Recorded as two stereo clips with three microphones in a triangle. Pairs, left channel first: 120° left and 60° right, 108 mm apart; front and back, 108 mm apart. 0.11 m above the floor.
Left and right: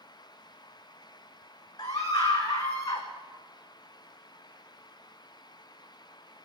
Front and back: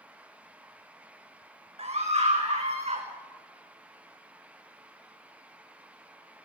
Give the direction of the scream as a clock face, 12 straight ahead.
6 o'clock.